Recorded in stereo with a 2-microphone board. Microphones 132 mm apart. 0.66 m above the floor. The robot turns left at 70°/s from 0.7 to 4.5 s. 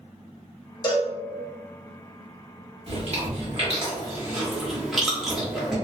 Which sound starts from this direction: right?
Chewing, at 2.9 s.